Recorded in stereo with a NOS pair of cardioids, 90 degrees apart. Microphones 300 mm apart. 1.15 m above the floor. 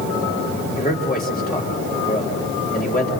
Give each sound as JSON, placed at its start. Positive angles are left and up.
{"t": 0.8, "sound": "a man speaking", "azimuth_deg": 25, "distance_m": 4.0}